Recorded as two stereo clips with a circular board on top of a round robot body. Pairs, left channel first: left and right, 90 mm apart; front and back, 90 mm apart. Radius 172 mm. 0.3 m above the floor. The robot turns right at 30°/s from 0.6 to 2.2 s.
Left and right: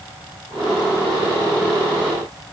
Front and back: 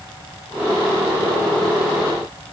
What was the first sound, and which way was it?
Only background noise.